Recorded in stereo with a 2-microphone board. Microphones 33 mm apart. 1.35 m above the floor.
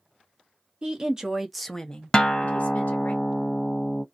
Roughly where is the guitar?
Left.